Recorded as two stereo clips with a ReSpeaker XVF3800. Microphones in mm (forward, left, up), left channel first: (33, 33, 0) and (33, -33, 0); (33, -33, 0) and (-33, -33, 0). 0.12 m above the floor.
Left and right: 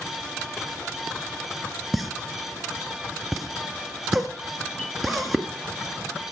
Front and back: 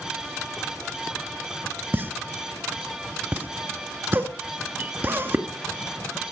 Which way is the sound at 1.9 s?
175° right.